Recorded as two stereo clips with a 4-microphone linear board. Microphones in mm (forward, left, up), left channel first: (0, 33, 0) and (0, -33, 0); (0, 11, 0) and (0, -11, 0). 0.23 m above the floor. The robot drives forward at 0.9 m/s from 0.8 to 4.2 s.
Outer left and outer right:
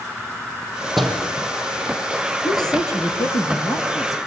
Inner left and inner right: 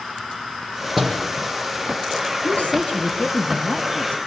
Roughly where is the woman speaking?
Left.